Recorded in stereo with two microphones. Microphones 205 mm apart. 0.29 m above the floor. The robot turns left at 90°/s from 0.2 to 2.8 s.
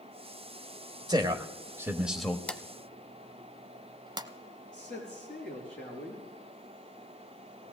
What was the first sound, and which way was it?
A man speaking, 20° right (ahead or behind).